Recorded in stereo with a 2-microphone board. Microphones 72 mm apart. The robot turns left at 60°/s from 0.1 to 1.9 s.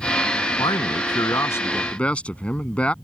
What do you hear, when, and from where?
0.6 s a man speaking: 95° left; by 2.9 s 15° left